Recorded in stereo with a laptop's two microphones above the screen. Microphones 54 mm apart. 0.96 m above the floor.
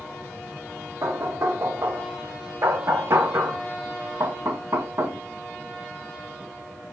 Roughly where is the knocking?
Right.